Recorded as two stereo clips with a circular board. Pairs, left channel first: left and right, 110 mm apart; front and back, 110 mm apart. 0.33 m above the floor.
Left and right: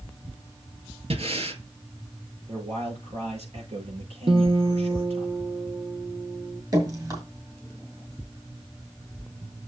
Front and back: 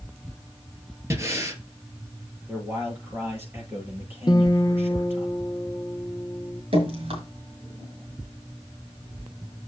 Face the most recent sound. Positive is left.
turn(degrees=-150)